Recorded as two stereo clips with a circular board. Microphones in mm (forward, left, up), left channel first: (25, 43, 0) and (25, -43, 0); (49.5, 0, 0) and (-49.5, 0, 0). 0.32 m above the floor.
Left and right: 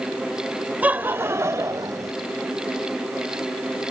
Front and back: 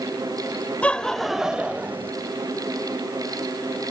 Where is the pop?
I don't hear a pop.